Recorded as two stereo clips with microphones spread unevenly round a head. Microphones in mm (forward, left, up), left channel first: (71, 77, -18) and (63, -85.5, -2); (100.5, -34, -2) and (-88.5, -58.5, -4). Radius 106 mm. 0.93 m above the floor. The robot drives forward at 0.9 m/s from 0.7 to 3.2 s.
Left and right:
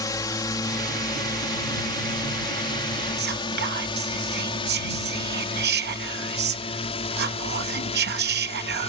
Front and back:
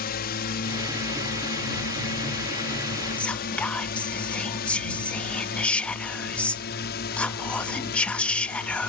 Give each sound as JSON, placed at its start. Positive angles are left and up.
{"t": 0.0, "sound": "a drone", "azimuth_deg": 25}
{"t": 3.2, "sound": "whispering", "azimuth_deg": -75}